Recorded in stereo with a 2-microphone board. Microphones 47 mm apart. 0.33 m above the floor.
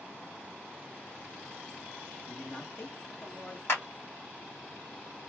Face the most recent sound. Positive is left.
turn(degrees=60)  # may be behind; listen again after turning